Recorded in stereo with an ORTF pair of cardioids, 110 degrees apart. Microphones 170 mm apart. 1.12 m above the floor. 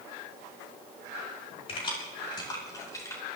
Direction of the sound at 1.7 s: 35° left.